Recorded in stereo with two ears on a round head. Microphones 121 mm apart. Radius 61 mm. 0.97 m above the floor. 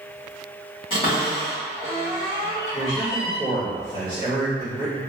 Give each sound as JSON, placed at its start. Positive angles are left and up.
{"t": 0.9, "sound": "a cupboard door", "side_deg": 35, "distance_m": 1.5}
{"t": 2.7, "sound": "a man speaking", "side_deg": 45, "distance_m": 1.8}